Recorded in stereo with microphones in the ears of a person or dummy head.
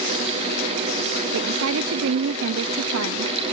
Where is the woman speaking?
75° right (ahead or behind).